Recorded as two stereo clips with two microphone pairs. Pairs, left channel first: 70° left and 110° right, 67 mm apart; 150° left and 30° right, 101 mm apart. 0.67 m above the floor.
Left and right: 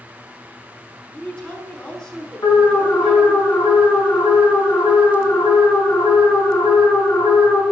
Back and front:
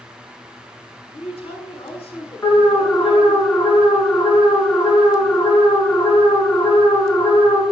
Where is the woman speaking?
145° left, 5 m.